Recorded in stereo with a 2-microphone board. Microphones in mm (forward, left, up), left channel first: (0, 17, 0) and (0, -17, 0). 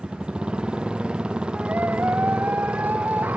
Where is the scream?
65° right (ahead or behind).